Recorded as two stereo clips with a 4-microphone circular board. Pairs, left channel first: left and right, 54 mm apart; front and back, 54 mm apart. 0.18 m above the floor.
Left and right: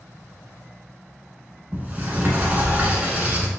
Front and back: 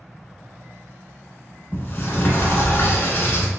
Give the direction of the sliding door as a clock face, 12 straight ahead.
1 o'clock.